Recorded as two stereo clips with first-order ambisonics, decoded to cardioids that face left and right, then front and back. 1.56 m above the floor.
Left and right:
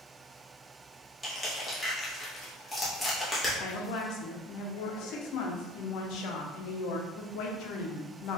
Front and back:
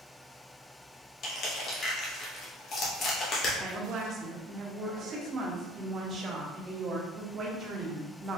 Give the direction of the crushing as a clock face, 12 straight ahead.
12 o'clock.